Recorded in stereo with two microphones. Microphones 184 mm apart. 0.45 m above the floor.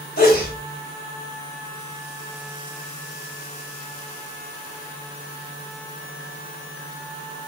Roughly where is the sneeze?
Left.